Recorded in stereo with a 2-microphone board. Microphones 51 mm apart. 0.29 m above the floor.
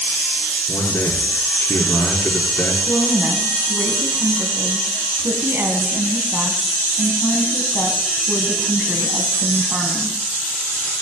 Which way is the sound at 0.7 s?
50° left (ahead or behind).